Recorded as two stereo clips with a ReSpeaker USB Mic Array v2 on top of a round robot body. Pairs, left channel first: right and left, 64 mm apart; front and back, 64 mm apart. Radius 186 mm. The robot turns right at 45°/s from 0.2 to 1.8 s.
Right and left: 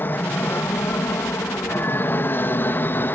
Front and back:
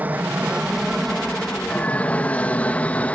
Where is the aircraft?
125° right; by 3.2 s 55° right.